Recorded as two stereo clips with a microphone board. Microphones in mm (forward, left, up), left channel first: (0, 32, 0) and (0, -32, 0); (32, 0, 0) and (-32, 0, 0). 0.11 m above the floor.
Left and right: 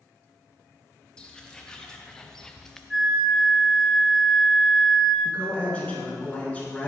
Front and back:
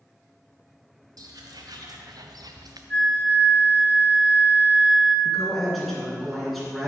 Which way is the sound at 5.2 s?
85° left.